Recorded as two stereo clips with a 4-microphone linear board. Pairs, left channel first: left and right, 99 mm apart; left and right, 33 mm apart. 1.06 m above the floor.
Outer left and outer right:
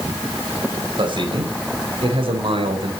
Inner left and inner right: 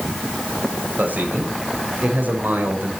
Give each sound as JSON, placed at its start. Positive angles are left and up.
{"t": 1.0, "sound": "a man speaking", "side_deg": -55, "distance_m": 4.5}